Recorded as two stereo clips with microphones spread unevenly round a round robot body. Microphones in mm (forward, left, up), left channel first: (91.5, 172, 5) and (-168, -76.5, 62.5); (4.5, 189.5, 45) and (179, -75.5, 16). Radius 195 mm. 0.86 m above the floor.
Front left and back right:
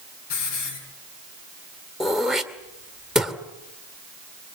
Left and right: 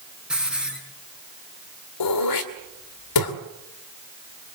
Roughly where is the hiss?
Ahead left.